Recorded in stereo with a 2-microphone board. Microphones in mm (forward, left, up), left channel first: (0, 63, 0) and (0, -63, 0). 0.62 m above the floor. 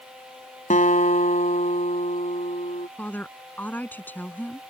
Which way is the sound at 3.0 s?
15° left (ahead or behind).